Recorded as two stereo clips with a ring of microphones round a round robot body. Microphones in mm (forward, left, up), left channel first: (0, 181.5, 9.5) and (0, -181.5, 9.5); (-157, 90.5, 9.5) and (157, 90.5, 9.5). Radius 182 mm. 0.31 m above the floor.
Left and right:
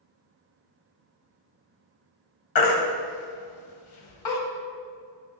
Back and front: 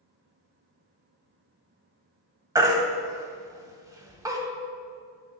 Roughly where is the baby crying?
Left.